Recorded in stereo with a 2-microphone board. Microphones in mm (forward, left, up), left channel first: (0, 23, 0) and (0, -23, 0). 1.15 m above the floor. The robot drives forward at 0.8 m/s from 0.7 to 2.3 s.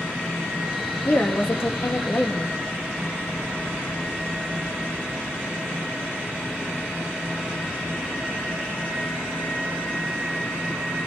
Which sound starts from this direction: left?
A woman speaking, at 1.1 s.